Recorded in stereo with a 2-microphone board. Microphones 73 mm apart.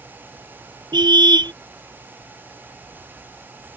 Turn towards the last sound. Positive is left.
turn(degrees=-70)  # may be behind; listen again after turning